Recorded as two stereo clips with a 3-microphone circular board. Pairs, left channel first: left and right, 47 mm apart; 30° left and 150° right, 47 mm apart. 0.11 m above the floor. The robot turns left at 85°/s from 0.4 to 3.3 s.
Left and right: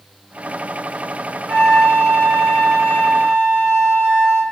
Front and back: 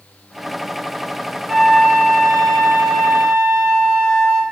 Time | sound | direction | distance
1.5 | a flute | 110° left | 1.4 m